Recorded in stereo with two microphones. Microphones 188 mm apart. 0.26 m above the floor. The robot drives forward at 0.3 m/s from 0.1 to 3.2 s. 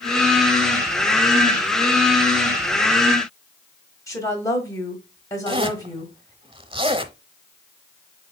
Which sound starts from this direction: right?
A zipper, at 5.5 s.